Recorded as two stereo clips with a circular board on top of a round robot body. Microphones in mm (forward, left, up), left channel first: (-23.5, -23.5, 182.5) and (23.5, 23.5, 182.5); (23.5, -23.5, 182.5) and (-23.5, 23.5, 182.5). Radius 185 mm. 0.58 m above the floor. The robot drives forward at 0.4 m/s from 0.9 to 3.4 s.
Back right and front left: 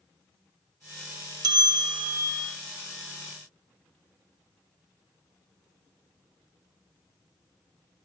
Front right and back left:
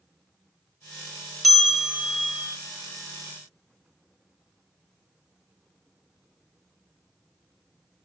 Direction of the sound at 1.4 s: 45° left.